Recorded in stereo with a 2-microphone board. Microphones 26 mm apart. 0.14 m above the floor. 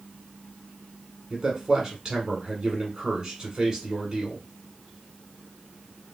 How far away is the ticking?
No ticking in this recording.